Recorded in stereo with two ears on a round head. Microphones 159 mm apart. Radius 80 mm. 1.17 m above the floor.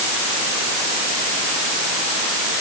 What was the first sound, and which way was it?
Only background noise.